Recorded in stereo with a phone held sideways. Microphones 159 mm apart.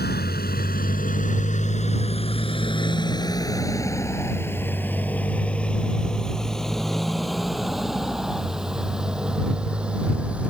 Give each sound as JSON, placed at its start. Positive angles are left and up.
{"t": 0.0, "sound": "a motorcycle", "side_deg": 75}